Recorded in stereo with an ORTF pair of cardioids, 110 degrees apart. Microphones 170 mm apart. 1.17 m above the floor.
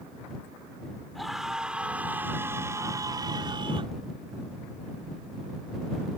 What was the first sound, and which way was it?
A scream, straight ahead.